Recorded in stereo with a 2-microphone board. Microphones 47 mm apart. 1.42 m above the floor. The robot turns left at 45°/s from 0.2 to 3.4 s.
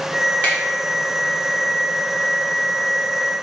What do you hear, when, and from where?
0.4 s a finger snap: 35° left (ahead or behind), 1.3 m; by 0.6 s 30° left (ahead or behind), 1.3 m